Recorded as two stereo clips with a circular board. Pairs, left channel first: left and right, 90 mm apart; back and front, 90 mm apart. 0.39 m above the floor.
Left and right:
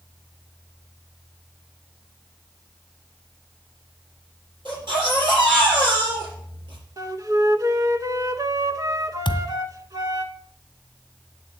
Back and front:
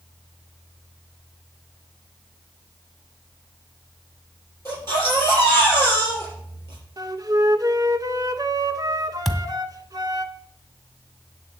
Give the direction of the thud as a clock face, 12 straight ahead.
9 o'clock.